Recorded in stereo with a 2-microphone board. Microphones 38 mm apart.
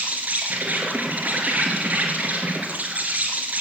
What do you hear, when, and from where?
0.0 s an insect: 40° right (ahead or behind), 3.5 m